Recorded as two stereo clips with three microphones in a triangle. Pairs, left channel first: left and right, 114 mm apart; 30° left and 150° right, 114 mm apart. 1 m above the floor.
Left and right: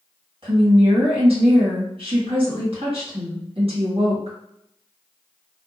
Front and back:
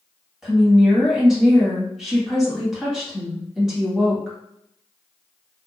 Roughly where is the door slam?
No door slam in this recording.